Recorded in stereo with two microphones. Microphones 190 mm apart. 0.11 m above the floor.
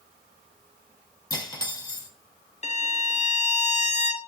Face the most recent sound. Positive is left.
turn(degrees=40)  # may be behind; listen again after turning